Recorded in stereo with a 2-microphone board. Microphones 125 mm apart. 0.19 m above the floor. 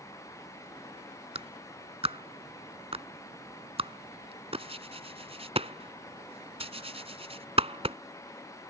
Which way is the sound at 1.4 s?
50° right (ahead or behind).